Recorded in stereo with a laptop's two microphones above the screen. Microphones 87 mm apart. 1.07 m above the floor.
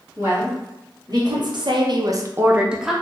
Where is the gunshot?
I don't hear a gunshot.